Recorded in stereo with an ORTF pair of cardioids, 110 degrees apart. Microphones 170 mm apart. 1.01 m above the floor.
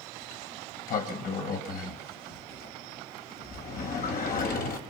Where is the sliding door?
60° left, 5 m.